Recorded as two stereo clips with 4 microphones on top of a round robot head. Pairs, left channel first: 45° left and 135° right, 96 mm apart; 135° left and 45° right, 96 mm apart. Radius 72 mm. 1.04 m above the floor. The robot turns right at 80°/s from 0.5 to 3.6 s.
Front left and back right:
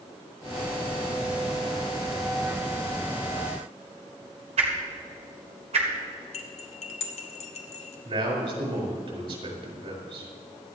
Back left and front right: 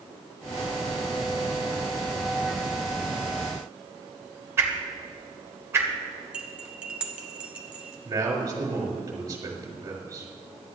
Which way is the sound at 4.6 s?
110° right.